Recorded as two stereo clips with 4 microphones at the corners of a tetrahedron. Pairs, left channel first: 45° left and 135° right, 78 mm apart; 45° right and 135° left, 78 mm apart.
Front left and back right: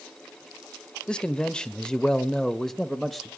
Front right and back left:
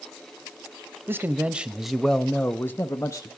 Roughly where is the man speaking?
Behind left.